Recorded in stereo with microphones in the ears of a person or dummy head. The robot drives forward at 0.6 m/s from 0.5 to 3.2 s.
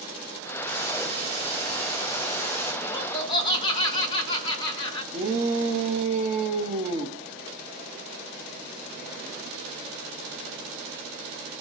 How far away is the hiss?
About 4.5 m.